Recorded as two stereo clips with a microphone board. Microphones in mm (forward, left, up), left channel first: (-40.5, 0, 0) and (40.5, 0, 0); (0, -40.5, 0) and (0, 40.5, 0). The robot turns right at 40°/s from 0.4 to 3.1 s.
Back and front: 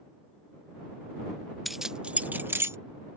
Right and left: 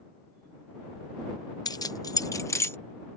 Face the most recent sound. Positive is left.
turn(degrees=-30)